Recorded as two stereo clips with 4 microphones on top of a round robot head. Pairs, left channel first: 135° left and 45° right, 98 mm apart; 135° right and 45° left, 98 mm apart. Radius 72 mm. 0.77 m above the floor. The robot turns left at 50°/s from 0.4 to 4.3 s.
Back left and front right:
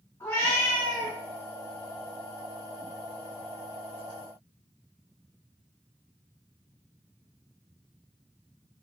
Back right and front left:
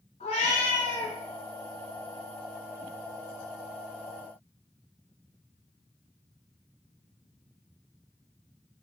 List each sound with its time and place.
0.2 s a cat meowing: 155° right, 1.1 m; by 1.1 s 170° left, 1.1 m